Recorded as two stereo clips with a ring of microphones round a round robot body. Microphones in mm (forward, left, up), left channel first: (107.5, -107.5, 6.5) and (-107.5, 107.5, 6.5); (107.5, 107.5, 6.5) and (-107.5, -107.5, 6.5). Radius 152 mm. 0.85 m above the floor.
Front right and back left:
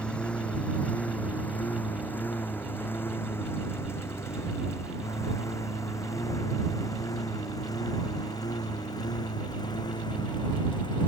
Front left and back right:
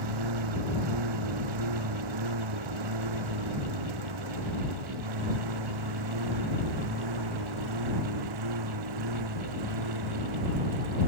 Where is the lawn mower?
130° right; by 11.1 s 120° right.